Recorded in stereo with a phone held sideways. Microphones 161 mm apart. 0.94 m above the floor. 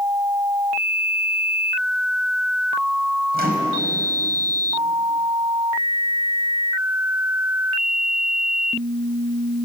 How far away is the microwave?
About 4.5 m.